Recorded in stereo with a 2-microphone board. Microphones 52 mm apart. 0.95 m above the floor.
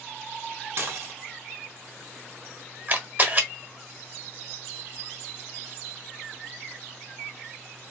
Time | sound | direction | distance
0.8 | dishes clattering | 55° right (ahead or behind) | 0.8 m
2.9 | a camera shutter | 40° right (ahead or behind) | 0.9 m